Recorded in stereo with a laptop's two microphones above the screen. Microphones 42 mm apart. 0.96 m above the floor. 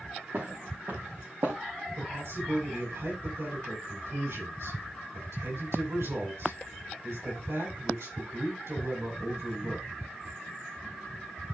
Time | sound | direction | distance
0.3 | footsteps | 50° right (ahead or behind) | 5.5 m
2.0 | a man speaking | 90° right | 7.5 m